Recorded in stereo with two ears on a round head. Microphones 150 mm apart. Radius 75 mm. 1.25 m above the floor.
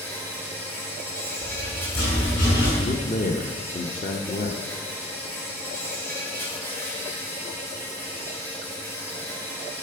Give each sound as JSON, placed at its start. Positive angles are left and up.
{"t": 0.0, "sound": "an insect", "side_deg": 15, "distance_m": 3.5}
{"t": 1.4, "sound": "a rattle", "side_deg": 65, "distance_m": 6.5}
{"t": 2.8, "sound": "a man speaking", "side_deg": 45, "distance_m": 1.0}